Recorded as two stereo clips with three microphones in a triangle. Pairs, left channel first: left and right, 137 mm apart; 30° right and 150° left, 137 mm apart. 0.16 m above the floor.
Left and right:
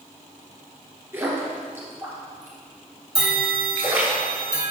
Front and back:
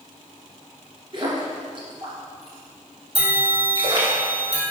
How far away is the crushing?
I don't hear crushing.